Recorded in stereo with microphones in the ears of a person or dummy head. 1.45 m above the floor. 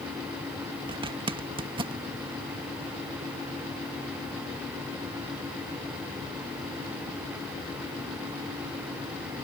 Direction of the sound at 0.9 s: 25° right (ahead or behind).